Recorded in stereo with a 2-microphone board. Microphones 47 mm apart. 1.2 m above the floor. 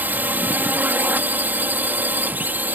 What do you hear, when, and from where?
0.0 s a drone: 40° right (ahead or behind)